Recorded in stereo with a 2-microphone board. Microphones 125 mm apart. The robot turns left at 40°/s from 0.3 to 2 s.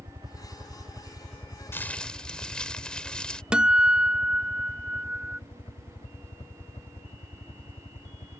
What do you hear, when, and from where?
0.0 s a helicopter: 40° right (ahead or behind); by 8.4 s 50° left (ahead or behind)
1.7 s crumpling: 20° left (ahead or behind); by 3.4 s 10° left (ahead or behind)
3.5 s a guitar: 10° right (ahead or behind)